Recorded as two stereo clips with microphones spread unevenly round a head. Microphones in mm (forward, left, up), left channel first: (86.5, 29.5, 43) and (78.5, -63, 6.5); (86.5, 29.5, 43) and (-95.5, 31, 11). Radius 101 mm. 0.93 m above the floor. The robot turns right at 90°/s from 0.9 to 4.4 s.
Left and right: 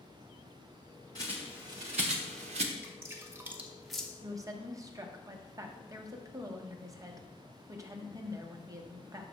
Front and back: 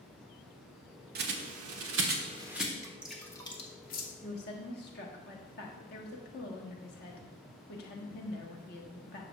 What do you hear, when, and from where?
1.1 s a bird: 140° left, 0.9 m; by 2.7 s 85° right, 0.9 m
2.8 s dripping: 125° right, 1.1 m; by 4.1 s 10° right, 1.1 m
4.2 s a woman speaking: 60° right, 1.5 m; by 9.2 s 45° right, 1.5 m